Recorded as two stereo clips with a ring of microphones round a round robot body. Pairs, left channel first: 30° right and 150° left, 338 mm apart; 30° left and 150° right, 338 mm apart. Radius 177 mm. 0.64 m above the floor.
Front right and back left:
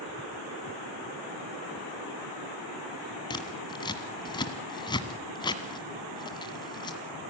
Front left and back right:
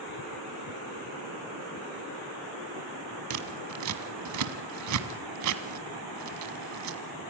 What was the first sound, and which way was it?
Scissors, 110° right.